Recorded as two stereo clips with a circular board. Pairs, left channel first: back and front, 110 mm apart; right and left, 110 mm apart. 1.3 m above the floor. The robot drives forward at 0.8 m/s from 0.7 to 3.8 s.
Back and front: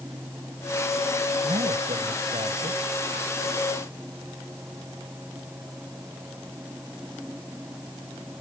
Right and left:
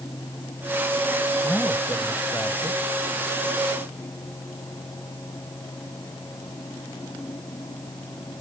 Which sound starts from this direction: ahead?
A man speaking, at 1.4 s.